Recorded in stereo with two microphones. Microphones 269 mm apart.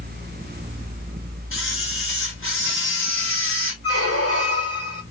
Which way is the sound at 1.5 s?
50° left (ahead or behind).